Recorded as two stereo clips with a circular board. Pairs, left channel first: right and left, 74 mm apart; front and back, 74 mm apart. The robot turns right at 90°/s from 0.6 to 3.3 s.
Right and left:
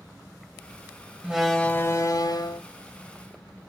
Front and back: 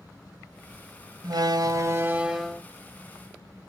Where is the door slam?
160° left, 1.4 m; by 2.6 s 80° right, 1.4 m.